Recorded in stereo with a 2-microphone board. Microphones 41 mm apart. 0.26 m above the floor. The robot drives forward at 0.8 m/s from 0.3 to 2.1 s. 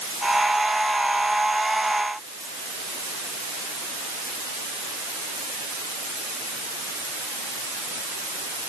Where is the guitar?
No guitar in this recording.